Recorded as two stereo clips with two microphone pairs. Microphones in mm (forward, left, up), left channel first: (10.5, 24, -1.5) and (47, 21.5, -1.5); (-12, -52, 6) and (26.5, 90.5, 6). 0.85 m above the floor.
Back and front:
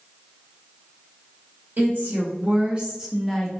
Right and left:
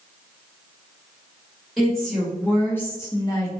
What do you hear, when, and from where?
1.8 s a woman speaking: 15° right, 1.4 m; by 3.6 s 145° right, 0.9 m